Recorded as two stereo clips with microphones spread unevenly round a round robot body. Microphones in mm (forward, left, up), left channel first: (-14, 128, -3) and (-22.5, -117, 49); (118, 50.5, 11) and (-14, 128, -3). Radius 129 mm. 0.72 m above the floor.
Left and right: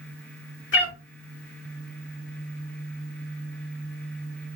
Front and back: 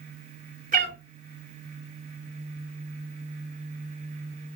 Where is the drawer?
I don't hear a drawer.